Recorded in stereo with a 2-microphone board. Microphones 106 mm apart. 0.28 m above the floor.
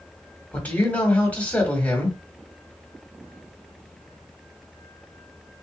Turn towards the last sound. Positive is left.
turn(degrees=15)  # may be behind; listen again after turning